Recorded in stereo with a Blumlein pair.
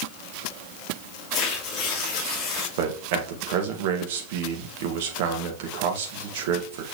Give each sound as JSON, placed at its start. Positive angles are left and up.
{"t": 1.3, "sound": "tearing paper", "azimuth_deg": 25, "distance_m": 2.5}
{"t": 2.8, "sound": "a man speaking", "azimuth_deg": -50, "distance_m": 1.7}